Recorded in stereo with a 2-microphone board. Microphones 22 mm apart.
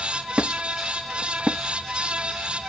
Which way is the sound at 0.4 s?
60° right (ahead or behind).